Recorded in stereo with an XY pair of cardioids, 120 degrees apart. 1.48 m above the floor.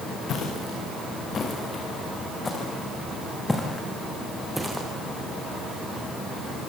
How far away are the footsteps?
About 7 m.